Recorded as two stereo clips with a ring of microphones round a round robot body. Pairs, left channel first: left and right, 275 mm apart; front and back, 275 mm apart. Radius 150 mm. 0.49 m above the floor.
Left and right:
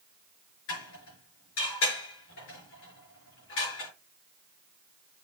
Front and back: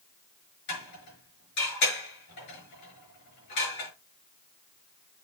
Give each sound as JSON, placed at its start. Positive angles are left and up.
{"t": 0.7, "sound": "dishes clattering", "azimuth_deg": 40, "distance_m": 5.5}